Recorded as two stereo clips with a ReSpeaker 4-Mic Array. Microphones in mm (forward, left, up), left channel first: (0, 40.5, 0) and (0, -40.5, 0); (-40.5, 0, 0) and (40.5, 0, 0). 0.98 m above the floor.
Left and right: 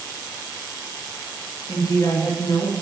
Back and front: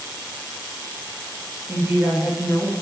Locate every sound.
1.7 s a woman speaking: 55° left, 1.3 m; by 2.7 s 80° left, 1.2 m